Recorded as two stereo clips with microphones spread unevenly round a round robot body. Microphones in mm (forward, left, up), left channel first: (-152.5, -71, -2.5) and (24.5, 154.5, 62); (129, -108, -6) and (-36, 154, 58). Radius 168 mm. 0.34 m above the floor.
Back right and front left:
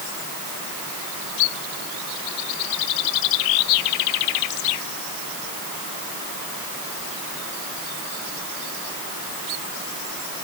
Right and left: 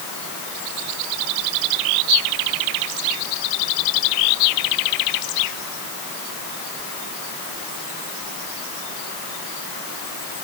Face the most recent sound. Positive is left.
No sound to turn to.